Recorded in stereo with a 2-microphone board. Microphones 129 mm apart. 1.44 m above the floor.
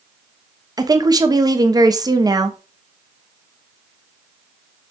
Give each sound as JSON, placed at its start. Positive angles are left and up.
{"t": 0.8, "sound": "a woman speaking", "side_deg": -30, "distance_m": 0.9}